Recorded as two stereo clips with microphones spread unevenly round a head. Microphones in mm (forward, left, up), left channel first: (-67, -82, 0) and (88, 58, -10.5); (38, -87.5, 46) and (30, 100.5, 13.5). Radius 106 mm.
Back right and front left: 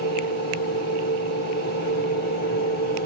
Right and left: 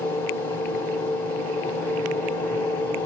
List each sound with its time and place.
0.0 s a machine running: 160° right, 1.6 m